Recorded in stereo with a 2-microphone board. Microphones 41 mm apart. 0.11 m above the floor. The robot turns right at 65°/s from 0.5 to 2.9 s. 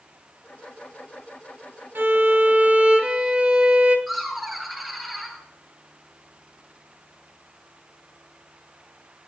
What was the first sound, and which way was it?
A violin, 90° right.